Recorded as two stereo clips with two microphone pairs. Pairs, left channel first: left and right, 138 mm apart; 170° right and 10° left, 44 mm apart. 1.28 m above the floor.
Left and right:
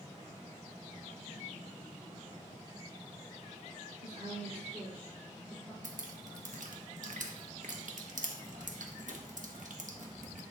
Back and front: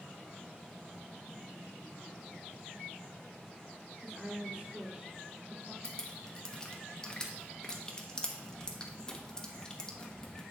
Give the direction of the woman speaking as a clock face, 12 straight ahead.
2 o'clock.